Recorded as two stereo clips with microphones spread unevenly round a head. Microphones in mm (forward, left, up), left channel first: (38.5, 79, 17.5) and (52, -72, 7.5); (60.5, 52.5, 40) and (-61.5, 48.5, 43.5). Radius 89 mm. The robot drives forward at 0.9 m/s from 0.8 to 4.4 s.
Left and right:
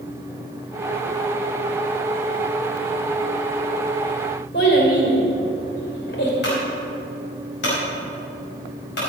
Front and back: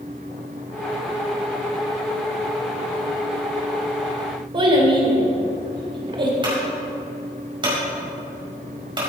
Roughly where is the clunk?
Behind left.